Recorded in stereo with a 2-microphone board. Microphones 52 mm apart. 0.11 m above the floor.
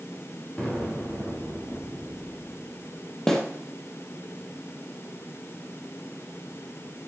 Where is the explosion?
25° left (ahead or behind), 8 m.